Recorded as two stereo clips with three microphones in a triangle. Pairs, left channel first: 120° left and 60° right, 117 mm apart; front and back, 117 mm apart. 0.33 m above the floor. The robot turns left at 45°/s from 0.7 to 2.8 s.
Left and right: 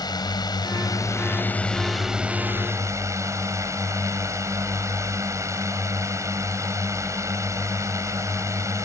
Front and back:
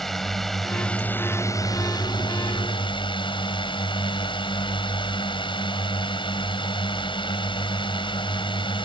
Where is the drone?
85° left; by 8.9 s 5° right.